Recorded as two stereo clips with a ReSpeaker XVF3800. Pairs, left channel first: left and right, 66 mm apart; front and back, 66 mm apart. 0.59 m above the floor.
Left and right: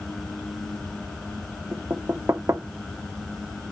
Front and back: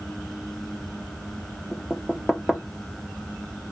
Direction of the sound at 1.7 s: 90° right.